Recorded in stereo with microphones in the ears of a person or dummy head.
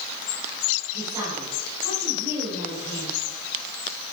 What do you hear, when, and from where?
0.9 s a woman speaking: 25° right (ahead or behind), 4 m